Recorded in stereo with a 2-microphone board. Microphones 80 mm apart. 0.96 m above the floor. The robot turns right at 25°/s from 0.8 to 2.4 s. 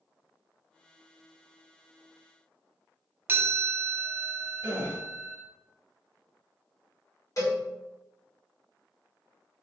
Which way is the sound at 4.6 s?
30° right (ahead or behind).